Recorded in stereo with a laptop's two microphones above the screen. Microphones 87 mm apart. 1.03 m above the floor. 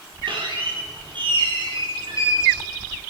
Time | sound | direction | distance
0.3 | a squeak | 70° right (ahead or behind) | 9 m